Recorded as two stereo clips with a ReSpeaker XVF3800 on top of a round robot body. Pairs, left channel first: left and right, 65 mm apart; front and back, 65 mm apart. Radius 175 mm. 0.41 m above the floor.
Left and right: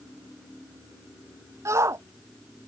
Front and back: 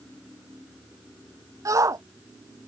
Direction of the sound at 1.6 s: 140° right.